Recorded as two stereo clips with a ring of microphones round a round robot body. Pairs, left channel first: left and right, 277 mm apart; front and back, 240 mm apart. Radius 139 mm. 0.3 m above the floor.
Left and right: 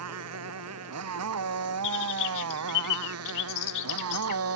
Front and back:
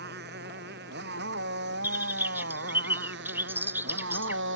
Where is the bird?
100° left.